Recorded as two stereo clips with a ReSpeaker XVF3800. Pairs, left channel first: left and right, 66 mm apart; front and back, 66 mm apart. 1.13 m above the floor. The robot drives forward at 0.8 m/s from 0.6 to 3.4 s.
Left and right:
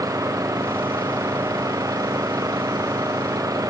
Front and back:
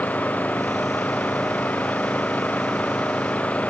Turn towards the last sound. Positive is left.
turn(degrees=-65)